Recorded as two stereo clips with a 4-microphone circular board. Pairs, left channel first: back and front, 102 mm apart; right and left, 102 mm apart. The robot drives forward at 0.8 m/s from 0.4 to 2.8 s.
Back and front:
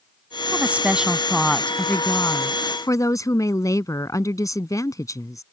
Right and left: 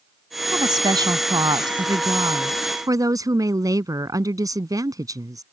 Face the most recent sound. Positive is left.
turn(degrees=135)